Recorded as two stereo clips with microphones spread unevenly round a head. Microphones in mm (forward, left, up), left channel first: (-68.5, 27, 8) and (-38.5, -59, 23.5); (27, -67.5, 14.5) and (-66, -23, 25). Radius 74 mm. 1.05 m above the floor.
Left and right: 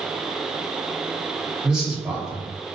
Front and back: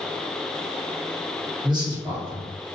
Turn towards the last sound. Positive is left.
turn(degrees=-155)